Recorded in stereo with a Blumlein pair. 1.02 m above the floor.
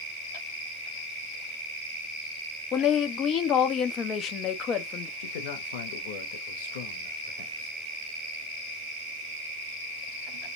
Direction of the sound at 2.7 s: 30° left.